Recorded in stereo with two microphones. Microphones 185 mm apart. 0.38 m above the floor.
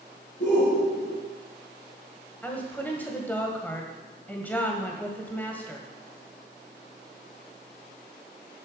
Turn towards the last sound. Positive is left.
turn(degrees=10)  # may be behind; listen again after turning